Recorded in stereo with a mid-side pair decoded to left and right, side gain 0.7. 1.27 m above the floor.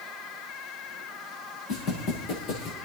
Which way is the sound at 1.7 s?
70° left.